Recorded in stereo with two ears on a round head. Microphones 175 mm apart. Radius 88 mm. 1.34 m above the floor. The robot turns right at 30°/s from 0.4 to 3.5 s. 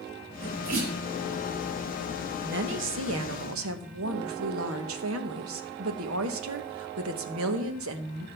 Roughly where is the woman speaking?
Behind right.